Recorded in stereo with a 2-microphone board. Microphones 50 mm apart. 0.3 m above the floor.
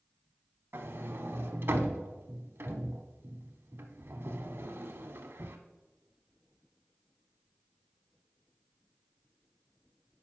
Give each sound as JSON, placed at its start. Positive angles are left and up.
{"t": 0.7, "sound": "a sliding door", "side_deg": -55, "distance_m": 0.7}